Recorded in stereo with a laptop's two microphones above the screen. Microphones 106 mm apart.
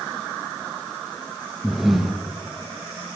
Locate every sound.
1.6 s breathing: centre (ahead or behind), 0.9 m